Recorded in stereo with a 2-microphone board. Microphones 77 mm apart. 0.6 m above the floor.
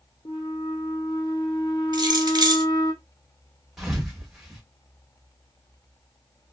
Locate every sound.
0.2 s a flute: 65° left (ahead or behind), 1.0 m
1.9 s keys jangling: 65° right (ahead or behind), 1.1 m
3.8 s a thud: 5° right (ahead or behind), 1.2 m